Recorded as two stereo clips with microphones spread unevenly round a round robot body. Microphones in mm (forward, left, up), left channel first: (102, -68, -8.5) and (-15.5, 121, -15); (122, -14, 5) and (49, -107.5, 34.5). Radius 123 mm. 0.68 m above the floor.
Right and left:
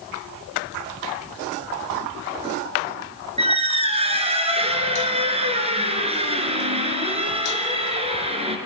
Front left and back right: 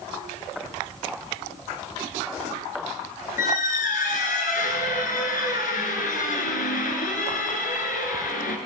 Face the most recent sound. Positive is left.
turn(degrees=60)